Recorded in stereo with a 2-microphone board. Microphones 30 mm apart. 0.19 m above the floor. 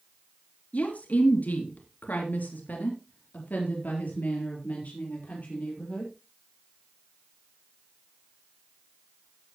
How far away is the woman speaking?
About 3.5 m.